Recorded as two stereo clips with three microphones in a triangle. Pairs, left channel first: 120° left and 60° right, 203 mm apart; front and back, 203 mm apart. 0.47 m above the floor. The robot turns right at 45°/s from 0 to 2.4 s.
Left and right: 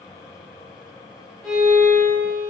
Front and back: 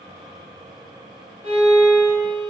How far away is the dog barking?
I don't hear a dog barking.